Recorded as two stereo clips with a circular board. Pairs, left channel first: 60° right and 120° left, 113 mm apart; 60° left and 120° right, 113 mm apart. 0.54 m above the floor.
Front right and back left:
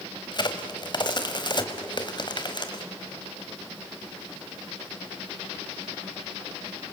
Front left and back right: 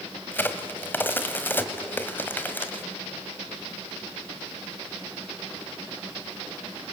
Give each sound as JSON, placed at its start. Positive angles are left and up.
{"t": 0.3, "sound": "a crack", "azimuth_deg": -10, "distance_m": 1.6}